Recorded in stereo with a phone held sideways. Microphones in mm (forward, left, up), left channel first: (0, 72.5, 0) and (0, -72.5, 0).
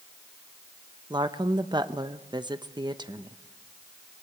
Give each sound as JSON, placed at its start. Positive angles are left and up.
{"t": 1.1, "sound": "a woman speaking", "side_deg": -30, "distance_m": 0.9}